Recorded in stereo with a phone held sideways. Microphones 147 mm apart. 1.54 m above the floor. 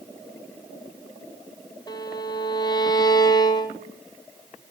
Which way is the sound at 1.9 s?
25° left (ahead or behind).